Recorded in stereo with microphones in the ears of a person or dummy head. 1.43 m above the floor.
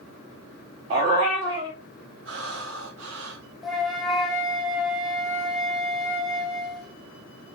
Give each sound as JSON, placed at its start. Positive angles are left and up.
{"t": 0.9, "sound": "a dog barking", "side_deg": -25, "distance_m": 1.0}
{"t": 2.2, "sound": "breathing", "side_deg": -70, "distance_m": 2.0}
{"t": 3.6, "sound": "a flute", "side_deg": 0, "distance_m": 0.8}